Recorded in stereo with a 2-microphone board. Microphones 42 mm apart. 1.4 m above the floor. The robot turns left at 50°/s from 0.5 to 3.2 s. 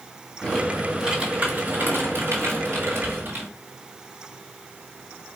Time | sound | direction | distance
0.4 | typing on a keyboard | 10° left | 1.9 m